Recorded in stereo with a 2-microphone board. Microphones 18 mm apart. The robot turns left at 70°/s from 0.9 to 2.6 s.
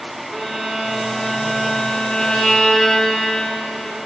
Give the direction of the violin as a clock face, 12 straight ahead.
6 o'clock.